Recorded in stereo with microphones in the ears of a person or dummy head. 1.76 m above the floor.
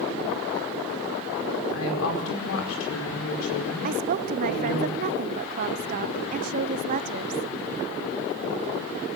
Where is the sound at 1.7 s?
85° left, 5 m.